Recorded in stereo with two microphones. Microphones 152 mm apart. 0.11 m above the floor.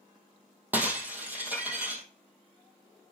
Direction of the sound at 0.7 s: 10° right (ahead or behind).